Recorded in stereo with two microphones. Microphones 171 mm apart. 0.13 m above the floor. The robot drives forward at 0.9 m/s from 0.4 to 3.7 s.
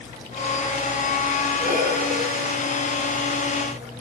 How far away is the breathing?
About 1.7 m.